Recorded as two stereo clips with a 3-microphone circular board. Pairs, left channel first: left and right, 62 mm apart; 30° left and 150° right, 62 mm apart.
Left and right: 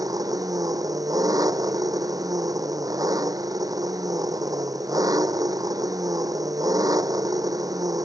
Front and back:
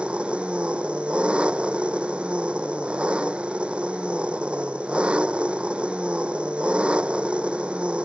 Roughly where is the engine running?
Right.